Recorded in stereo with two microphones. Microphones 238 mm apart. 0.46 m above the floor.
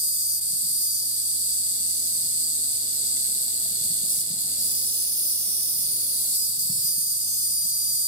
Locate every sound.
0.0 s an insect: 35° left (ahead or behind), 1.5 m